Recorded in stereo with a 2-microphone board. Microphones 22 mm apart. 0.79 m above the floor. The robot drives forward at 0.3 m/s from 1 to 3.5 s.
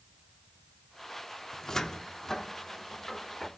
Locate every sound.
1.5 s a cupboard door: 25° left (ahead or behind), 0.7 m; by 3.5 s 15° left (ahead or behind), 1.3 m